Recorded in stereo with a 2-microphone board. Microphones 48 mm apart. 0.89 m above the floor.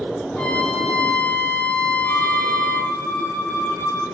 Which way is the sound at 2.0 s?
75° left (ahead or behind).